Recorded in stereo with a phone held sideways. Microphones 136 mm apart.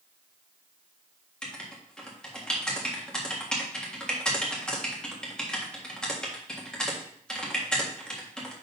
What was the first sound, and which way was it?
Writing, 5° left (ahead or behind).